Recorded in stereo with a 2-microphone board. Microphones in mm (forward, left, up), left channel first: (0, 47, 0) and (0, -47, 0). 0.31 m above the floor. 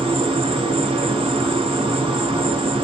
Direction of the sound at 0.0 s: 80° right.